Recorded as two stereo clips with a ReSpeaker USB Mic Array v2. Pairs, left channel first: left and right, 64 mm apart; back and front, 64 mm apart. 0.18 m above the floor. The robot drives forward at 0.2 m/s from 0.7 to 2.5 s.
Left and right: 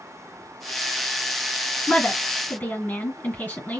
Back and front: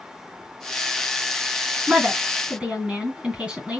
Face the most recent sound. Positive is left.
turn(degrees=60)